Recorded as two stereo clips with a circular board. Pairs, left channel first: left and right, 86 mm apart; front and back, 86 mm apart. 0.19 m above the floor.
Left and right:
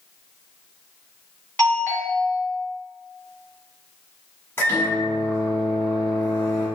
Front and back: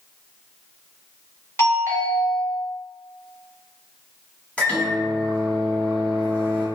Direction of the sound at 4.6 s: 60° left.